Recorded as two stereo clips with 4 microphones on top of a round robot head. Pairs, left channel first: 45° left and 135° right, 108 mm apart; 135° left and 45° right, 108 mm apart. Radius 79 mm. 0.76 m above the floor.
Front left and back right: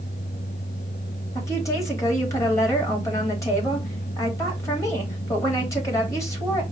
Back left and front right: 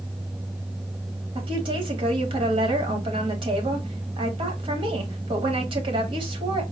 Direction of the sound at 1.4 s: 15° right.